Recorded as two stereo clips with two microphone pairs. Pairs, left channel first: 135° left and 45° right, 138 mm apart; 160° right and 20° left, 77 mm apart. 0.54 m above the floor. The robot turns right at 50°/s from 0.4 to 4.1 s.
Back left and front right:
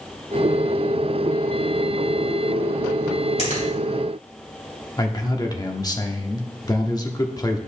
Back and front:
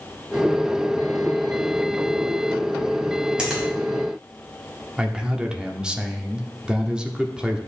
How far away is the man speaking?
About 0.9 m.